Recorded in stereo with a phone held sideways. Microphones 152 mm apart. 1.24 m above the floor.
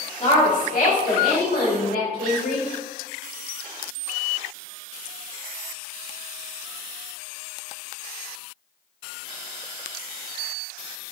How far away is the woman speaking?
About 1.6 m.